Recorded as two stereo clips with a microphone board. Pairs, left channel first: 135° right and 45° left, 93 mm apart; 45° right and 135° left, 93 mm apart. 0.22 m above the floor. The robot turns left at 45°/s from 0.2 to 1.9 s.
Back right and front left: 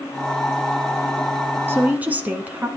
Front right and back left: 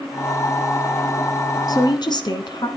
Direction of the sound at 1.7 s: 15° right.